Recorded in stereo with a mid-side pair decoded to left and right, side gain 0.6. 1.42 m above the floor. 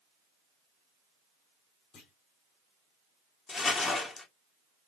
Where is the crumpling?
35° left, 1.6 m.